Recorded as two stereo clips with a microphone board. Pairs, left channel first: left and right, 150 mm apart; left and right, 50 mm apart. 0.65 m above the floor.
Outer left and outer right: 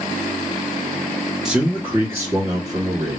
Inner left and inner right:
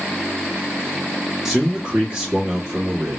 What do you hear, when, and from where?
1.4 s a man speaking: 5° right (ahead or behind), 1.1 m; by 3.2 s 25° right (ahead or behind), 1.9 m